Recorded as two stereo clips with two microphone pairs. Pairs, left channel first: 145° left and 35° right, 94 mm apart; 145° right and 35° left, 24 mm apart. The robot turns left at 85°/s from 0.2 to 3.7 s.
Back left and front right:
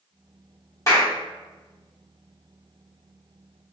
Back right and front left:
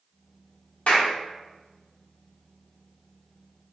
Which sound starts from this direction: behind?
A clap, at 0.9 s.